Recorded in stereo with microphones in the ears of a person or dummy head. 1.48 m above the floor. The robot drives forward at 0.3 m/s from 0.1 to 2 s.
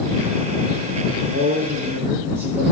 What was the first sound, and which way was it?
A man speaking, 55° right (ahead or behind).